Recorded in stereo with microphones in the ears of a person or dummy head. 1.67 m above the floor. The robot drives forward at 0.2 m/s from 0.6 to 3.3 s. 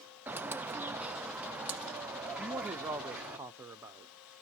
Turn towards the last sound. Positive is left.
turn(degrees=-10)  # may be behind; listen again after turning